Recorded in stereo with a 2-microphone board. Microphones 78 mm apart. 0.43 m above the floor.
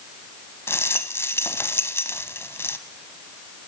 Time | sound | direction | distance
0.7 | a rattle | 35° left (ahead or behind) | 0.9 m